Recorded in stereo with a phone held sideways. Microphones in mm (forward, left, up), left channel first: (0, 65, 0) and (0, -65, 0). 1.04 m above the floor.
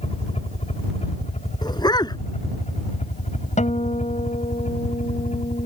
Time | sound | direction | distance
0.0 | a helicopter | 55° left (ahead or behind) | ?
1.6 | a dog barking | 30° left (ahead or behind) | ?
3.6 | a guitar | 70° left (ahead or behind) | ?